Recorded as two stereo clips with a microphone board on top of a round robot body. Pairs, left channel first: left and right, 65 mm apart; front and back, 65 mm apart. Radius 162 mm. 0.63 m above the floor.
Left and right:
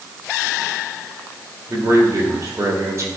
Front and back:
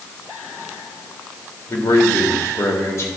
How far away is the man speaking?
About 2.5 m.